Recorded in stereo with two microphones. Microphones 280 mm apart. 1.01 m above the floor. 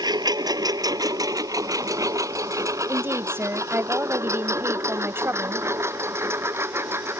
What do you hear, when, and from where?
0.0 s a lawn mower: 15° right (ahead or behind); by 7.2 s 10° right (ahead or behind)
2.9 s a woman speaking: 10° right (ahead or behind)